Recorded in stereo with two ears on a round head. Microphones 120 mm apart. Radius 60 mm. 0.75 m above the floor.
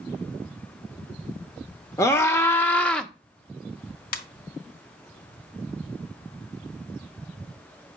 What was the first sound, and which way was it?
A scream, 20° left (ahead or behind).